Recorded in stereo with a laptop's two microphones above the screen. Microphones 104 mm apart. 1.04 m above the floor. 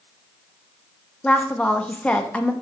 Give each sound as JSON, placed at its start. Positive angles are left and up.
{"t": 1.2, "sound": "a woman speaking", "side_deg": 10, "distance_m": 0.6}